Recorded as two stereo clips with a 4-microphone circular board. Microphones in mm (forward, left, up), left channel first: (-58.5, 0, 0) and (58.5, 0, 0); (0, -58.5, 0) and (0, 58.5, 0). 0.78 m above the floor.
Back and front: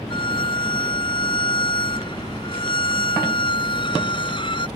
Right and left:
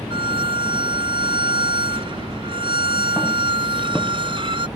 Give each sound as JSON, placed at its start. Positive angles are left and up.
{"t": 0.1, "sound": "a violin", "azimuth_deg": 135}